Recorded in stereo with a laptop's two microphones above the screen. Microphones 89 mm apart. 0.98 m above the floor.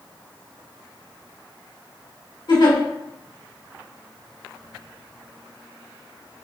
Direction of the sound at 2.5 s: 60° left (ahead or behind).